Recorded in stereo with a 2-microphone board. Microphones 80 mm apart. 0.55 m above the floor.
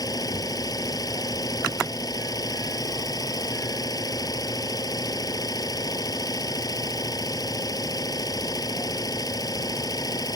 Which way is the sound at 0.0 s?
55° left (ahead or behind).